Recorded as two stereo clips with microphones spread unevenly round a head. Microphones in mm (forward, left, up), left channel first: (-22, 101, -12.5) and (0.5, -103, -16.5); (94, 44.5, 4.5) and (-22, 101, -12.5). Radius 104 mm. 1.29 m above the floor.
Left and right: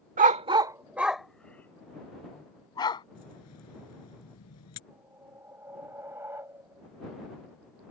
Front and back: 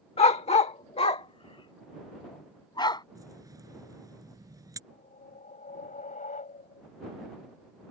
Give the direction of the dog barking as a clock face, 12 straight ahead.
1 o'clock.